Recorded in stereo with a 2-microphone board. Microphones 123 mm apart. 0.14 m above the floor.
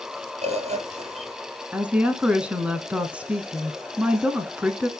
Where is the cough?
No cough in this recording.